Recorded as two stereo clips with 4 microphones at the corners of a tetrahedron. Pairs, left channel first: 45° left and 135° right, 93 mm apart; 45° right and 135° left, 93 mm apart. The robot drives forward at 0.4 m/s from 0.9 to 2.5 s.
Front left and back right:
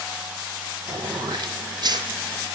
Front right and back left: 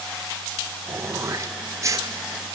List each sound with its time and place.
0.9 s throat clearing: 165° right, 1.4 m; by 2.1 s 170° right, 1.9 m